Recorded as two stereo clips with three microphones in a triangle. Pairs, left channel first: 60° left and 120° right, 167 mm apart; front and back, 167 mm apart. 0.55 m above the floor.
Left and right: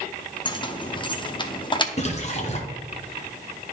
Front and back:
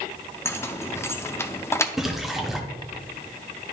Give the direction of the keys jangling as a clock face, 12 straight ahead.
10 o'clock.